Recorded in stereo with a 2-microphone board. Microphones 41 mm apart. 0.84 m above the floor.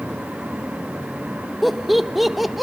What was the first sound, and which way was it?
Laughter, centre (ahead or behind).